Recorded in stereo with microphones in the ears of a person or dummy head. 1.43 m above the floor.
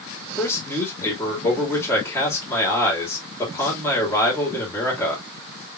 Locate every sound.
0.4 s a man speaking: 15° left (ahead or behind), 2.5 m